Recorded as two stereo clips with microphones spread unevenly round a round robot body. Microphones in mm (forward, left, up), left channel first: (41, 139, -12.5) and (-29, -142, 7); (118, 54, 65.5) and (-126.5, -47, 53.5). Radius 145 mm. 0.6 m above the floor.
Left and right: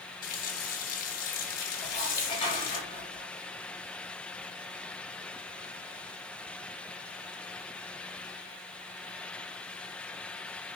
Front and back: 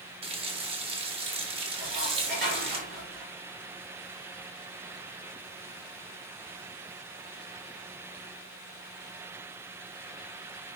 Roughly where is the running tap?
Behind left.